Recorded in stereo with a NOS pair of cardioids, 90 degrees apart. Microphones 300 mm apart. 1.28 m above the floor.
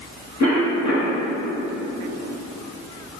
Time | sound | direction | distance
0.4 | a cough | 65° left | 1.7 m